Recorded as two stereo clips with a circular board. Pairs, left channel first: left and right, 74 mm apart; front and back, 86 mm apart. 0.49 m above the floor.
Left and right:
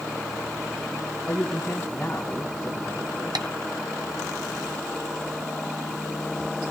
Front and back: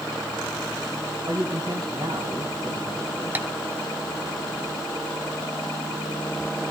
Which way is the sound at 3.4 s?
110° right.